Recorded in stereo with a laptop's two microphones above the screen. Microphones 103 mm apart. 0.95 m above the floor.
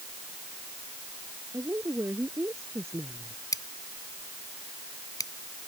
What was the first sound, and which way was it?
A woman speaking, 25° right (ahead or behind).